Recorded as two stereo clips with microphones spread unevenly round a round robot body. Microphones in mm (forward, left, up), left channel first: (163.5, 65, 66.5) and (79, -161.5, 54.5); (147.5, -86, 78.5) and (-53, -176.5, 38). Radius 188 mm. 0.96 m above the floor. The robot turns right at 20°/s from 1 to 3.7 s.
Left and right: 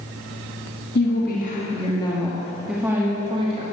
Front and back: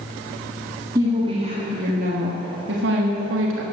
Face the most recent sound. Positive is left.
turn(degrees=180)